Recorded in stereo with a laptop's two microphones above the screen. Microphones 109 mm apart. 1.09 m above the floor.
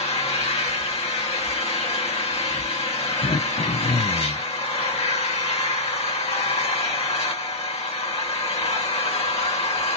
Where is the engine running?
75° left (ahead or behind), 1.6 m.